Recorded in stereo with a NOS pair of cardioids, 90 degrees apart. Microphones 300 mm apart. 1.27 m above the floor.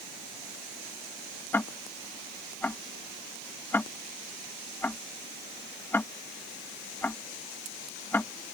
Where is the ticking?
5° left.